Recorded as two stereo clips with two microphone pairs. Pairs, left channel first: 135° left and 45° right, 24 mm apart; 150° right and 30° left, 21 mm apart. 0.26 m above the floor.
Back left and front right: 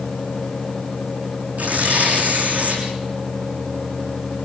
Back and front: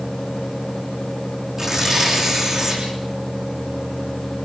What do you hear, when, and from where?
1.6 s tearing paper: 35° right, 7 m